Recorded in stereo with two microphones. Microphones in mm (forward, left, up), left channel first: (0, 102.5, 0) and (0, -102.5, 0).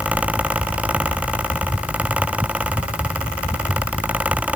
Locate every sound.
Only background noise.